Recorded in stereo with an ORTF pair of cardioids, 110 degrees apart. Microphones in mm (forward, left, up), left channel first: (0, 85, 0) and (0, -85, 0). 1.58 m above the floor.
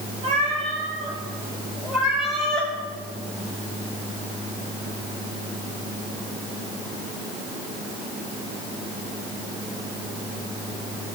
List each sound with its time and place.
0.2 s a cat meowing: 45° right, 4 m; by 2.7 s 10° left, 4 m